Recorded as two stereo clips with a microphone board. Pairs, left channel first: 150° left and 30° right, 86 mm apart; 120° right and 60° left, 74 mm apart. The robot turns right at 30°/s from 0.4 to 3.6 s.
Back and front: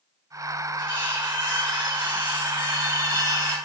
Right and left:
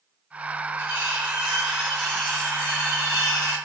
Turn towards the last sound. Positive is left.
turn(degrees=-160)